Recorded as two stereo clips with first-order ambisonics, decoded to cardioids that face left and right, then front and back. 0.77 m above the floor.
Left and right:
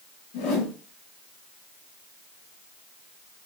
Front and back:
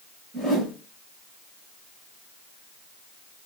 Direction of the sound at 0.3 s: 90° left.